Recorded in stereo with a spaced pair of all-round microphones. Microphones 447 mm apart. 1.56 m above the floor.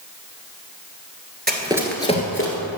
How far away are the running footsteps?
About 1.6 m.